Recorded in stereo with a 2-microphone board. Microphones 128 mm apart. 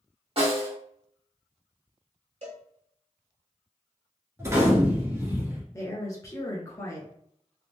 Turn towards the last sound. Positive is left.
turn(degrees=25)  # may be behind; listen again after turning